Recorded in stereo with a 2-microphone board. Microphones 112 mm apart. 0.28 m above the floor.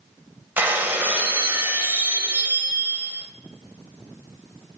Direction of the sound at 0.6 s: 15° right (ahead or behind).